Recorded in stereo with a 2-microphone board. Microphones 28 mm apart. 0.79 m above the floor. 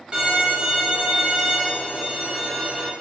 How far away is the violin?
About 0.7 m.